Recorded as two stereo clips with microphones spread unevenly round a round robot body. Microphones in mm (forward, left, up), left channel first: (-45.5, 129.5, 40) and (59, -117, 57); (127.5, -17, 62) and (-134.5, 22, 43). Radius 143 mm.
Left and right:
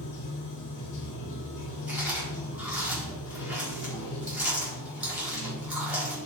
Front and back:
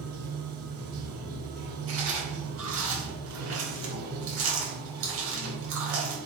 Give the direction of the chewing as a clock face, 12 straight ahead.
5 o'clock.